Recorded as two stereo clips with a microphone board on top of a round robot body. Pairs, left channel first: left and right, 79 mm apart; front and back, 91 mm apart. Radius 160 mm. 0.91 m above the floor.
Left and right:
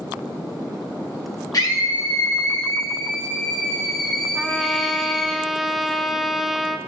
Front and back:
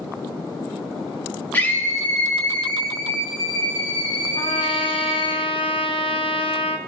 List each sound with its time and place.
1.5 s a scream: 65° left, 1.3 m; by 5.3 s 25° left, 2.5 m
4.3 s a trumpet: straight ahead, 0.8 m